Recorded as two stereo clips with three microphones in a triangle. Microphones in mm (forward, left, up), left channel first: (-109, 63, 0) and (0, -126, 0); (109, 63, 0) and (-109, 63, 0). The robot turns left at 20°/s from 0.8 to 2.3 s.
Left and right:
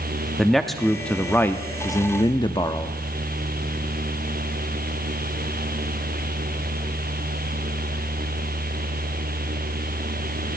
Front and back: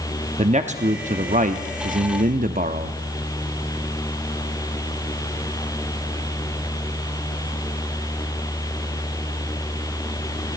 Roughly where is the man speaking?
Behind right.